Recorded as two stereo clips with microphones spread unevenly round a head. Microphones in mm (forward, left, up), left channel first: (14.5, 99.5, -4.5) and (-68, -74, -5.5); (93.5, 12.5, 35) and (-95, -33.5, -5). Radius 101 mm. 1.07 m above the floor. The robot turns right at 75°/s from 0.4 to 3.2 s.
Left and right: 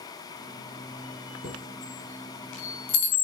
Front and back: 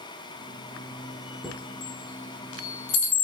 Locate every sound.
1.4 s a chime: 75° right, 4.5 m; by 3.2 s 60° left, 4.5 m